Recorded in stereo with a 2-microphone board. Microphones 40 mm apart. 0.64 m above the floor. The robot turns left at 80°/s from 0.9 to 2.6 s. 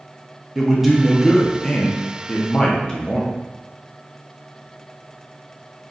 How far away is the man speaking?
About 0.8 m.